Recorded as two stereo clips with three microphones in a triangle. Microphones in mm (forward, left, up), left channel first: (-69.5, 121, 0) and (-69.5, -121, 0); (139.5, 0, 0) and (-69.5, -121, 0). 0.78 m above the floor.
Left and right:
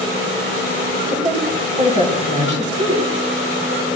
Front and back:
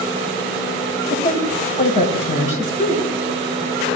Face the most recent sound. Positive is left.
turn(degrees=-30)